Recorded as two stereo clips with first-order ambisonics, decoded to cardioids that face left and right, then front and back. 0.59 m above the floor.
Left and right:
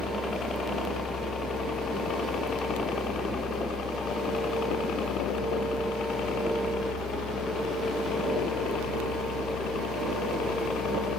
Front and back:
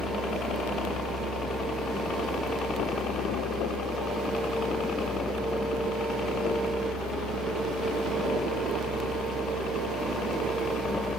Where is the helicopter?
35° left; by 11.2 s 55° left.